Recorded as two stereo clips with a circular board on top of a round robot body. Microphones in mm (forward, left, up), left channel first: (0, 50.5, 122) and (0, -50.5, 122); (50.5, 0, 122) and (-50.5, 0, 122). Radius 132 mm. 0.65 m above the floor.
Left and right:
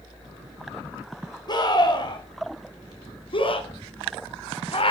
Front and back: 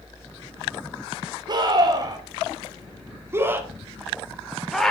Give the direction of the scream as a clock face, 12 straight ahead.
7 o'clock.